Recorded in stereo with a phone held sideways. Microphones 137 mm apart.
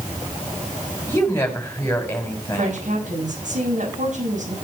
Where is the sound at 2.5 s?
70° right (ahead or behind), 6.5 m.